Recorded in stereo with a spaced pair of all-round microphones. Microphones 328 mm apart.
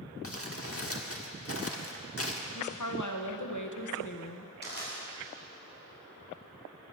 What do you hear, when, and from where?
0.2 s crumpling: 45° left (ahead or behind), 1.2 m
2.5 s a woman speaking: 65° left (ahead or behind), 1.1 m
4.6 s crushing: 30° left (ahead or behind), 4 m